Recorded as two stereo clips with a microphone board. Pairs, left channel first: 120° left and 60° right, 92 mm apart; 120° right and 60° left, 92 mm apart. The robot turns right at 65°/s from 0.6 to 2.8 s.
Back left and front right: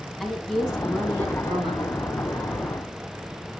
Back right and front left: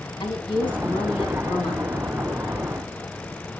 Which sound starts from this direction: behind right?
A woman speaking, at 0.2 s.